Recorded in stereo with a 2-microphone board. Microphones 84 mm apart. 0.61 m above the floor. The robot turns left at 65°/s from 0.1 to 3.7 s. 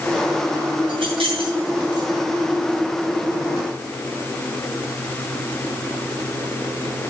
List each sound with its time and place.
0.9 s keys jangling: 60° right (ahead or behind), 5.5 m; by 2.1 s 45° right (ahead or behind), 5.5 m